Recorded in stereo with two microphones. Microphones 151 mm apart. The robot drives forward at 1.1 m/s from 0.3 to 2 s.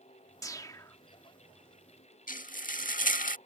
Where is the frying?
65° left (ahead or behind).